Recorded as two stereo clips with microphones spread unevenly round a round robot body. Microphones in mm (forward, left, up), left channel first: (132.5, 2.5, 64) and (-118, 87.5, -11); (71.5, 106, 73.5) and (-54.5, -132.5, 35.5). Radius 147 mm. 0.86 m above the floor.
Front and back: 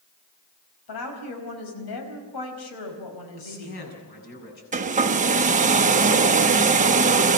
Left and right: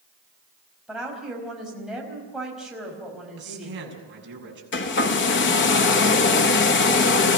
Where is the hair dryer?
110° left, 1.3 m.